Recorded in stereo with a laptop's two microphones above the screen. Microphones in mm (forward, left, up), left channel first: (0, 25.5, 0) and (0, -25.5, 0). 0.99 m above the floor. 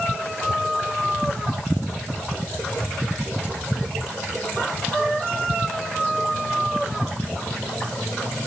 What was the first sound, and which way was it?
Only background noise.